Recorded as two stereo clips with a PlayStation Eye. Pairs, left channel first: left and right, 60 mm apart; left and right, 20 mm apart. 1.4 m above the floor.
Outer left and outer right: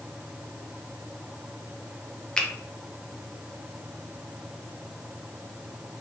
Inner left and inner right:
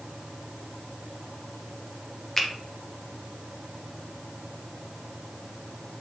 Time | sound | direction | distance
2.4 | a finger snap | 15° left (ahead or behind) | 0.5 m